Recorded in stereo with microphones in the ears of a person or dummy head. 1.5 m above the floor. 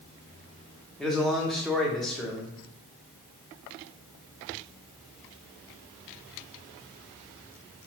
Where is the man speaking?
Centre (ahead or behind), 0.6 m.